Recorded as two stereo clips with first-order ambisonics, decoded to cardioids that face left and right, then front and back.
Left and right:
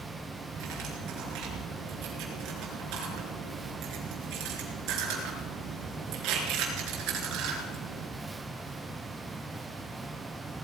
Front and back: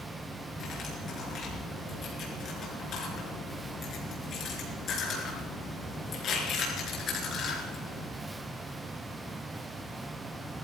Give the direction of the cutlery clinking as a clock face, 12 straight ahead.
2 o'clock.